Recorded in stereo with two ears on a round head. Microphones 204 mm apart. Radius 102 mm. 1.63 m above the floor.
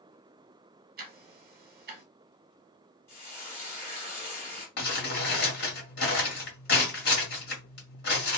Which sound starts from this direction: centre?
Frying, at 3.1 s.